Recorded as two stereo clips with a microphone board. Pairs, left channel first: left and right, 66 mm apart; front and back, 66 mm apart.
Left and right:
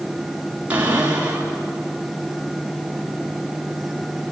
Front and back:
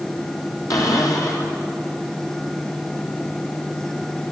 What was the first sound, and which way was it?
A cupboard door, 25° right.